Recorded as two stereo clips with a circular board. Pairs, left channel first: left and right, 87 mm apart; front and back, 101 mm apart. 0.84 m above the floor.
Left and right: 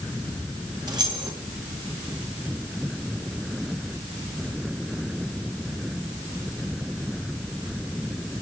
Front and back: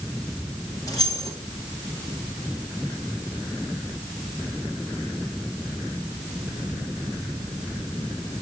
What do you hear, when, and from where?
0.9 s keys jangling: 50° right, 3.5 m